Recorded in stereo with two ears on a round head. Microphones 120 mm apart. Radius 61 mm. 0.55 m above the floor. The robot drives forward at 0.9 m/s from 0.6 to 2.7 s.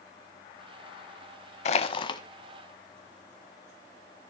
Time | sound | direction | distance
1.6 | crushing | 50° left (ahead or behind) | 0.8 m